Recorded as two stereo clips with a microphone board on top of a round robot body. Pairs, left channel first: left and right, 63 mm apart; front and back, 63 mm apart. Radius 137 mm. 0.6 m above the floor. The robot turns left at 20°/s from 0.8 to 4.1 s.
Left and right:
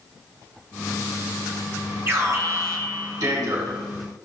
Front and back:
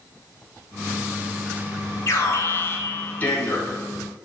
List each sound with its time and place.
2.1 s an alarm: 40° right, 4.5 m; by 3.8 s 80° right, 4.5 m